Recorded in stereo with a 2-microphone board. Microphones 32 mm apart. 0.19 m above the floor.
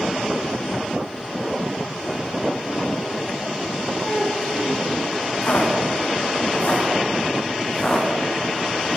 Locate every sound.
4.0 s a child speaking: 30° left (ahead or behind), 6.5 m
5.4 s footsteps: 70° left (ahead or behind), 4.5 m; by 9.0 s 5° left (ahead or behind), 5 m